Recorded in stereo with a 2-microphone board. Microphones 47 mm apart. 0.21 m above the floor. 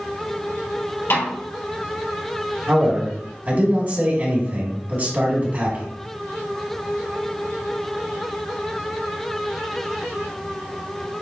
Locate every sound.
1.1 s a snare drum: 60° left (ahead or behind), 3 m
2.7 s a man speaking: 40° right (ahead or behind), 2 m